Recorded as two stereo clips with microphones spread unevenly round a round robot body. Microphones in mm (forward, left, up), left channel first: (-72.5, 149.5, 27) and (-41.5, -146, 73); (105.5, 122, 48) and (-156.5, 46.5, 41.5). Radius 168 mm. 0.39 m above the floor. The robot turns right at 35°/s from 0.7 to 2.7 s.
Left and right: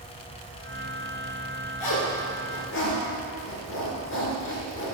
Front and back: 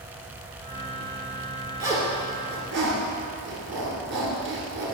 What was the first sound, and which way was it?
A zipper, 115° left.